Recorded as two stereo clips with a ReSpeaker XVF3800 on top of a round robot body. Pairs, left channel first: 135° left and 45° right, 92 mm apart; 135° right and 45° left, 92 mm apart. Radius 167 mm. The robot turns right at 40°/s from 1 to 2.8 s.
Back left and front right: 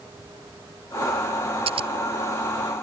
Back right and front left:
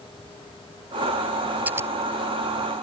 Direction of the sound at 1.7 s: 25° right.